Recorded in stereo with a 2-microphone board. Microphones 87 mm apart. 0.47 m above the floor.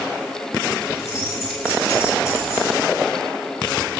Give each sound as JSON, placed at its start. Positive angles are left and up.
{"t": 0.9, "sound": "keys jangling", "side_deg": 30, "distance_m": 5.0}